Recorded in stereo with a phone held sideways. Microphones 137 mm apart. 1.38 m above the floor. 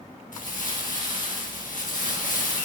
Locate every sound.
0.3 s crumpling: 75° left (ahead or behind), 1.4 m